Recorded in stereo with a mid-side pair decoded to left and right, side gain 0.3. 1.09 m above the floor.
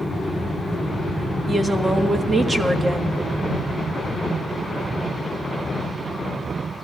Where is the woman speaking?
40° right, 1.5 m.